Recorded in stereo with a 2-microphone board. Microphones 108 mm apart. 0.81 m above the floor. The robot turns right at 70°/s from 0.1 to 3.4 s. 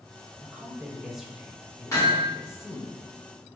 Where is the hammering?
30° left (ahead or behind), 1.5 m; by 2.3 s 5° left (ahead or behind), 1.5 m.